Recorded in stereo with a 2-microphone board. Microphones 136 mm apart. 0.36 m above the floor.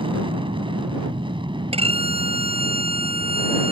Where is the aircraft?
40° right (ahead or behind); by 3.7 s 35° right (ahead or behind).